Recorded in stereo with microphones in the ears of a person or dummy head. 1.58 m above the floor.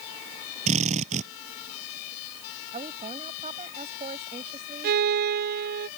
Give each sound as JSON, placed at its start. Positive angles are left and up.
{"t": 0.7, "sound": "a drill", "side_deg": -40}
{"t": 2.7, "sound": "a woman speaking", "side_deg": -35}
{"t": 4.8, "sound": "a violin", "side_deg": -55}